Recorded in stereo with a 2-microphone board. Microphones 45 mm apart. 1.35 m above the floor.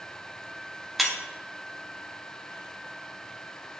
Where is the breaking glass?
5° right (ahead or behind), 0.9 m.